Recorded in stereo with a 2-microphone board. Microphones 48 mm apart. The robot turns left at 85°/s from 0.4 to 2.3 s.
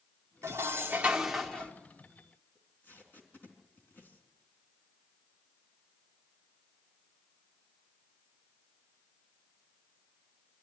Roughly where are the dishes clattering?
Right.